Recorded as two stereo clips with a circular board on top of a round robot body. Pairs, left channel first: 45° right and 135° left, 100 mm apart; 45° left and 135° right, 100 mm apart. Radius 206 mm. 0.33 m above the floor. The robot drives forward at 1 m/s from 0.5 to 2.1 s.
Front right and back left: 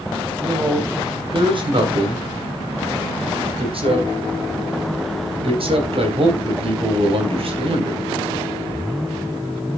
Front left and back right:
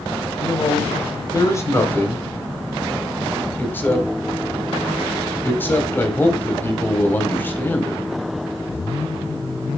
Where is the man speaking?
85° left, 3 m; by 8.0 s 115° left, 3 m.